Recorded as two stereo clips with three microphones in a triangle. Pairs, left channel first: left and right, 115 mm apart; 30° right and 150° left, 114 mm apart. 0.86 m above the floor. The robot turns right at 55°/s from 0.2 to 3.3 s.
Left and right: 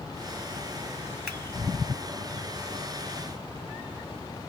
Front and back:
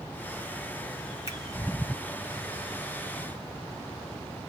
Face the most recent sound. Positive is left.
turn(degrees=105)